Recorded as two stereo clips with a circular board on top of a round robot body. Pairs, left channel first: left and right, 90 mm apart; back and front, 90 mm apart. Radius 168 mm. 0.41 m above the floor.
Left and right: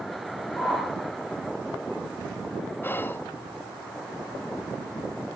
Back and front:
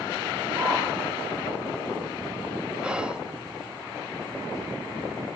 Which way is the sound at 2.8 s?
65° left.